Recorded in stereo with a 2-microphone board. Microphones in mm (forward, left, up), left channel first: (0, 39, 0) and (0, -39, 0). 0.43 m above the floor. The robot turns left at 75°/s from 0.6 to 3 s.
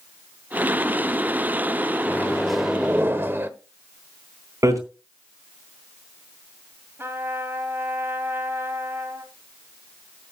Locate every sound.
2.1 s a microwave: 35° left, 1.0 m; by 3.5 s 35° right, 1.0 m
4.6 s hammering: 45° right (ahead or behind), 3.5 m
7.0 s a trumpet: 30° right (ahead or behind), 2 m